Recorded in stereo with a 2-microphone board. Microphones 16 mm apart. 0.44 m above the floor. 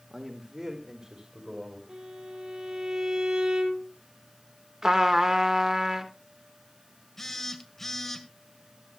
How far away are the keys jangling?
I don't hear keys jangling.